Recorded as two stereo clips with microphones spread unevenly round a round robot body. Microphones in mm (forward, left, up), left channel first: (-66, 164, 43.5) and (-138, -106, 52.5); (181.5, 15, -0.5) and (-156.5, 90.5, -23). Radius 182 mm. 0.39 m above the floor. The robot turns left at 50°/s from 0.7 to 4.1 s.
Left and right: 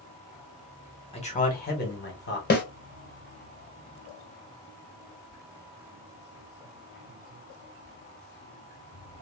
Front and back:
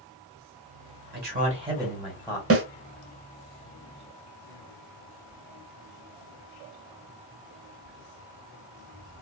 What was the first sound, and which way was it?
A man speaking, 130° left.